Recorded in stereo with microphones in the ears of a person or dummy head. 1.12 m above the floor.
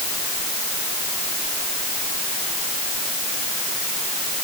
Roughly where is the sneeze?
I don't hear a sneeze.